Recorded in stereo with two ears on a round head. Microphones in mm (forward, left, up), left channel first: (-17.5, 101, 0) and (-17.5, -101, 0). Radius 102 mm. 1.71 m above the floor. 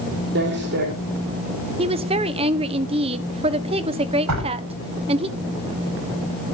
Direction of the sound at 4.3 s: 85° right.